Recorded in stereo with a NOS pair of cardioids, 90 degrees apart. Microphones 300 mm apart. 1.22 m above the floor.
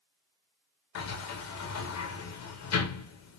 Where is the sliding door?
60° left, 1.1 m.